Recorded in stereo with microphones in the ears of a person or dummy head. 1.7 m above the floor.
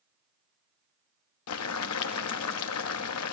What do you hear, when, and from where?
1.5 s boiling: 85° left, 0.7 m